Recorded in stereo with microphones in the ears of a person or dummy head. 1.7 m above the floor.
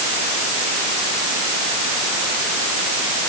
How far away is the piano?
I don't hear a piano.